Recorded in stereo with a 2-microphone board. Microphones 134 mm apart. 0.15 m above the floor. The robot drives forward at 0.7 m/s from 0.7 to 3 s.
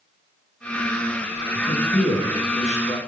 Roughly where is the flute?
I don't hear a flute.